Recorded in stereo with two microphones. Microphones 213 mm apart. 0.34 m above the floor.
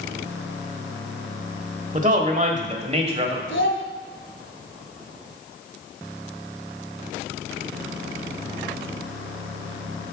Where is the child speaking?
65° left (ahead or behind), 1.6 m.